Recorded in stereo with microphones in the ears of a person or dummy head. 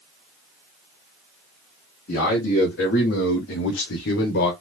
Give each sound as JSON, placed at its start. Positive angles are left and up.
{"t": 2.1, "sound": "a man speaking", "side_deg": 45, "distance_m": 1.7}